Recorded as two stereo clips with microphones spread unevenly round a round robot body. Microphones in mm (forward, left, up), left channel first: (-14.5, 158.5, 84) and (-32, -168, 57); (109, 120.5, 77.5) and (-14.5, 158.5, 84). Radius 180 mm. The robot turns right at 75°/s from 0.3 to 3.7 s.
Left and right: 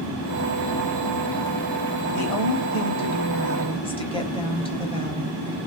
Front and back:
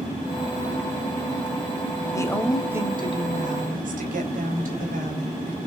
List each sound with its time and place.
2.1 s a woman speaking: 45° left, 4 m; by 5.6 s 160° left, 4 m